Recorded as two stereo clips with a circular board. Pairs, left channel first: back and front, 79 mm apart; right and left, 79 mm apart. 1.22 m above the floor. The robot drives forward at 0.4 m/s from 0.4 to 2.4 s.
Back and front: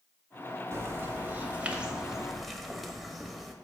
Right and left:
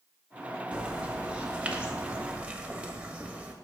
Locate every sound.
0.7 s a bird: 20° left, 1.2 m; by 3.5 s 85° left, 1.0 m